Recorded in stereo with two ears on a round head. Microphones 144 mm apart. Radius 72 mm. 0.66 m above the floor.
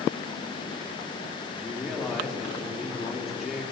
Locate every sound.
1.6 s a man speaking: centre (ahead or behind), 1.7 m